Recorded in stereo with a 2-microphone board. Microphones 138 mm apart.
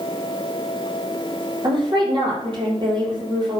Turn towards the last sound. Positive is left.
turn(degrees=-35)  # may be behind; listen again after turning